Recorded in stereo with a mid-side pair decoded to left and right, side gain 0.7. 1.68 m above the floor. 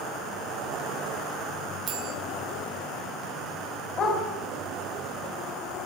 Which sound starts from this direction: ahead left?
A dog barking, at 4.0 s.